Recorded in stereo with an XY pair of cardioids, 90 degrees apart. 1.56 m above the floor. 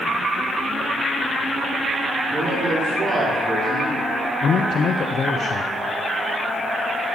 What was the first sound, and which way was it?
A man speaking, 35° right.